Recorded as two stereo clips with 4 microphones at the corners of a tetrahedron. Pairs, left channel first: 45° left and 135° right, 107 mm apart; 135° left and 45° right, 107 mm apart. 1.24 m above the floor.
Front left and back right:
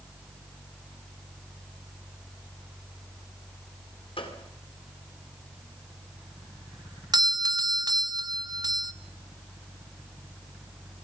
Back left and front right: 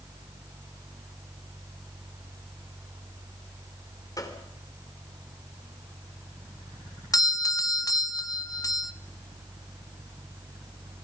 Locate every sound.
4.2 s a gunshot: 80° left, 3 m
7.1 s a doorbell: straight behind, 0.7 m